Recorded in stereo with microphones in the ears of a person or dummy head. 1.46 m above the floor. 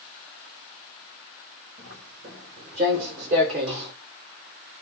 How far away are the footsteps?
About 4 m.